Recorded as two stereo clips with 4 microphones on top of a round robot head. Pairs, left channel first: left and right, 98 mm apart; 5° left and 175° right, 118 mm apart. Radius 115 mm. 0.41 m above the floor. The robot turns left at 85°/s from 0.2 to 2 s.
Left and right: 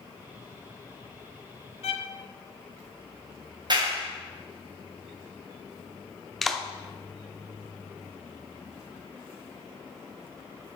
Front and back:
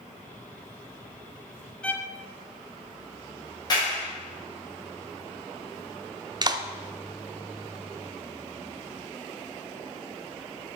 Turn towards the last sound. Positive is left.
turn(degrees=175)